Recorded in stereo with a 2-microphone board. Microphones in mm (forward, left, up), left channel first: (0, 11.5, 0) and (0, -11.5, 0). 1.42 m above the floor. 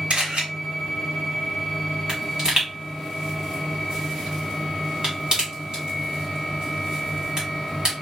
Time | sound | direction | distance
0.1 | a camera shutter | 70° right (ahead or behind) | 1.9 m
2.1 | a pop | 40° right (ahead or behind) | 1.8 m